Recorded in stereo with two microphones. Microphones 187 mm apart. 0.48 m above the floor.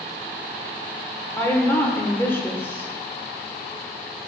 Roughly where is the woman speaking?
Centre.